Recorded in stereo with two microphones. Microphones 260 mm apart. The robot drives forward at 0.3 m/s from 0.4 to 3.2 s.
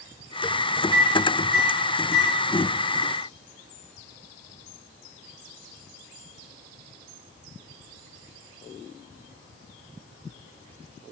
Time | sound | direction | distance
0.9 | a microwave | 60° left (ahead or behind) | 1.2 m